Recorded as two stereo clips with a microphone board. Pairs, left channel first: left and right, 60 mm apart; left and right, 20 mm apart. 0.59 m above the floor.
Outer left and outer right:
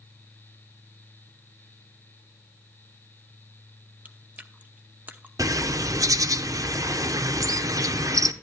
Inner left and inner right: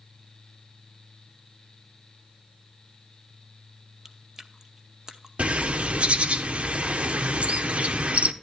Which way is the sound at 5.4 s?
70° right (ahead or behind).